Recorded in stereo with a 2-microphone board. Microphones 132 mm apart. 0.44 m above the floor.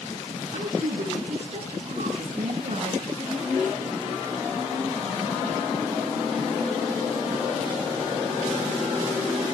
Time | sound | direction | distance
0.5 | a woman speaking | 50° right (ahead or behind) | 7 m